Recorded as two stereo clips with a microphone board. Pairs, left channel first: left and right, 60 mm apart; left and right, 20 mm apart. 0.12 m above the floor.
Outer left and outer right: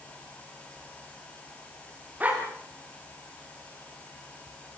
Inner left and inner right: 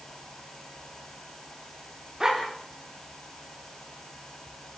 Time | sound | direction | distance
2.2 | a dog barking | 30° right (ahead or behind) | 8.5 m